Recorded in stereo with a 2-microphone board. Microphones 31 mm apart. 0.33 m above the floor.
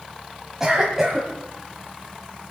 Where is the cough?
15° right (ahead or behind), 1.7 m.